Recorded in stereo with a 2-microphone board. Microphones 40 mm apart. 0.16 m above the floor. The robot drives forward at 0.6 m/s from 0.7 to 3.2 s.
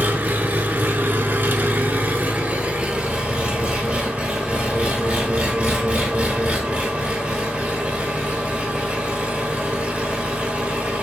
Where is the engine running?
50° right (ahead or behind), 0.8 m; by 11.0 s 25° right (ahead or behind), 1.4 m.